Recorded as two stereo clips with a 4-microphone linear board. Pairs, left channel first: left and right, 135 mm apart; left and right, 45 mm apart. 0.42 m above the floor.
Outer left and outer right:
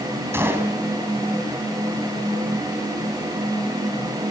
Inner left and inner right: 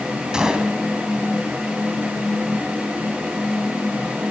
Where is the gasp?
I don't hear a gasp.